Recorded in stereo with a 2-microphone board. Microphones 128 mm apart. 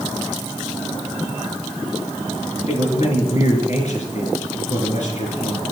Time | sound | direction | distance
2.7 | a man speaking | 65° left (ahead or behind) | 3 m